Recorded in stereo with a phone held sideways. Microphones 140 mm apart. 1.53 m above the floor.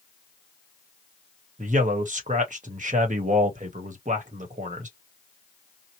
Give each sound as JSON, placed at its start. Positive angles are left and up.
{"t": 1.6, "sound": "a man speaking", "side_deg": -65, "distance_m": 1.1}